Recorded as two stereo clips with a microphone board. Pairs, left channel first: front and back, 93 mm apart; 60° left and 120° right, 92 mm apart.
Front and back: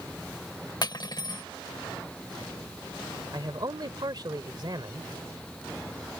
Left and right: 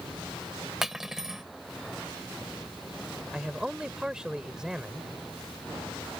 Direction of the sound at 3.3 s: 160° left.